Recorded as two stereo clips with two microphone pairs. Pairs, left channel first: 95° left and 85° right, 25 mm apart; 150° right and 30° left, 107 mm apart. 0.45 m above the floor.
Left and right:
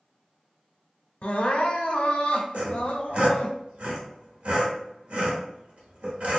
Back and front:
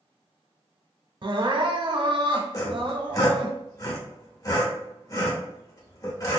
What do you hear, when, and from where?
1.2 s crying: 70° left, 0.6 m
2.5 s sawing: 100° right, 0.9 m